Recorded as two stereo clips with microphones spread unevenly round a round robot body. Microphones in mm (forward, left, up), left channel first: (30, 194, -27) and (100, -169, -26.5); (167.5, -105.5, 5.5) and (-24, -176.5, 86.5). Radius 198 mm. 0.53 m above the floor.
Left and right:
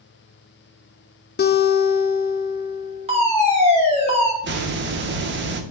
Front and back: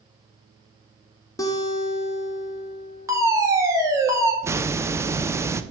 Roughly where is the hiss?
Ahead right.